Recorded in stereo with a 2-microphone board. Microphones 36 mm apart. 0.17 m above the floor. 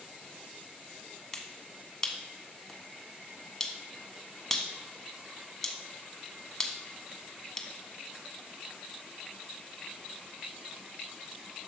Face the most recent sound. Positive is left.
turn(degrees=10)  # may be behind; listen again after turning